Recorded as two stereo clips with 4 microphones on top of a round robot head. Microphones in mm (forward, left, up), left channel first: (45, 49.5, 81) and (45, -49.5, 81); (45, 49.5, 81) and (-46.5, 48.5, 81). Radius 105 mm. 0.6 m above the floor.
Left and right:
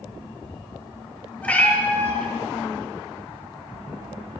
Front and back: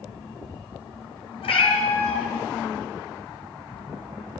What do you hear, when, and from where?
1.4 s a cat meowing: 15° left, 1.5 m